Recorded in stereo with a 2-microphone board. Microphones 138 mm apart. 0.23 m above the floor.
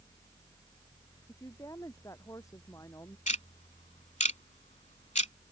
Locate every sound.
1.3 s a woman speaking: 25° left (ahead or behind)
3.3 s ticking: 60° left (ahead or behind)